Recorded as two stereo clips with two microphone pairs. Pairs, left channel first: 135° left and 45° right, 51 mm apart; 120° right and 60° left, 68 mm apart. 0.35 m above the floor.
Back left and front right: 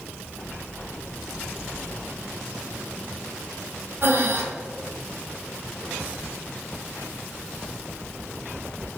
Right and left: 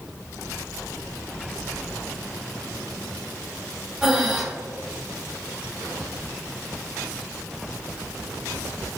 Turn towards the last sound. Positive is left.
turn(degrees=-20)